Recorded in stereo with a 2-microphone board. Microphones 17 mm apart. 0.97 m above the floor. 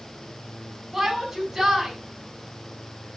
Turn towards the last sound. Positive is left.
turn(degrees=-25)  # may be behind; listen again after turning